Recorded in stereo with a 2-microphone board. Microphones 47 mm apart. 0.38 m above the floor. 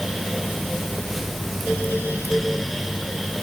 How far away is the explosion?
No explosion in this recording.